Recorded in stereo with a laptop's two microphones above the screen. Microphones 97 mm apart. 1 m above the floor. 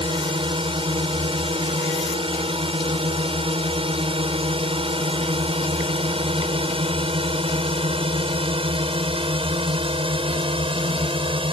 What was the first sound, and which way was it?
A drone, 65° right (ahead or behind).